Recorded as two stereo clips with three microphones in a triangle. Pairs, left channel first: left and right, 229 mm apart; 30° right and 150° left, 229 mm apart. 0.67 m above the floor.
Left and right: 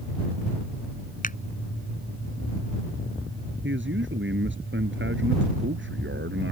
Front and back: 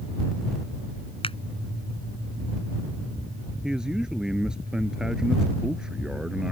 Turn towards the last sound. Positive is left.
turn(degrees=-125)